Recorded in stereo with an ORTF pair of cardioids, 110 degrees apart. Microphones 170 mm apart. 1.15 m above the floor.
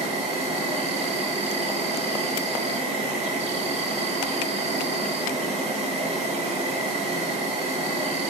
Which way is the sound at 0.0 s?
40° right.